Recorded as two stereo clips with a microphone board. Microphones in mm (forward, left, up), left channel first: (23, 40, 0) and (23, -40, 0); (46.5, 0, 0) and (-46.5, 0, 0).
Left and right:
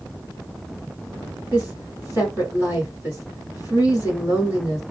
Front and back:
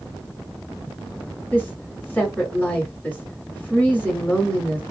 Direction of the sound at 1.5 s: 60° right.